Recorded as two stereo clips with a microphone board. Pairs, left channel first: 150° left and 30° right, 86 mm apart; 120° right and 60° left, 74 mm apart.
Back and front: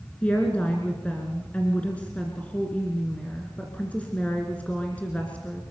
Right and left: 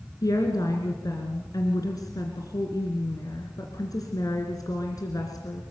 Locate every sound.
0.2 s a woman speaking: 140° right, 2.5 m